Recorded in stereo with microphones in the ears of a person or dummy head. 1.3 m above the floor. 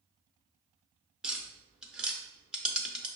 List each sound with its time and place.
1.2 s tapping: 5° right (ahead or behind), 0.6 m